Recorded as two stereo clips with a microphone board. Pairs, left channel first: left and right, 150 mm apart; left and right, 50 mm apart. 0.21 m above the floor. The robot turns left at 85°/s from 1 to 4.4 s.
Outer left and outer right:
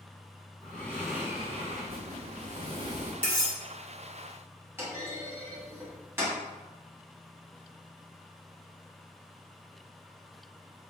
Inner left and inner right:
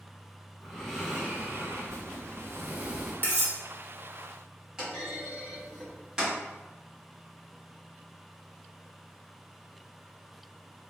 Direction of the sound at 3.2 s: 35° left (ahead or behind).